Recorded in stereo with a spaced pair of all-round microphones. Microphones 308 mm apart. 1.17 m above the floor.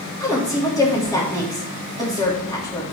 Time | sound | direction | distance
0.2 | a woman speaking | 10° left (ahead or behind) | 2.5 m